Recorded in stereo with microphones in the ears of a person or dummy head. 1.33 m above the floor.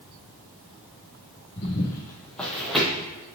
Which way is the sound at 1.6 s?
30° left (ahead or behind).